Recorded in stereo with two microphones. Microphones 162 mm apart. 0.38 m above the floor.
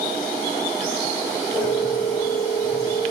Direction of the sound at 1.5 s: 5° left (ahead or behind).